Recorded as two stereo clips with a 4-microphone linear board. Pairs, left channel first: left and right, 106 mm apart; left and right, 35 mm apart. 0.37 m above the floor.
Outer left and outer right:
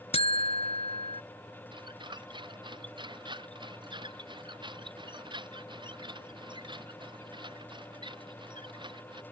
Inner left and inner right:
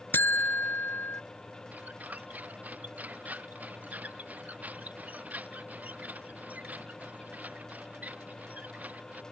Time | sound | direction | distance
0.1 | a buzzer | 80° left | ?
1.7 | a squeak | 50° right (ahead or behind) | ?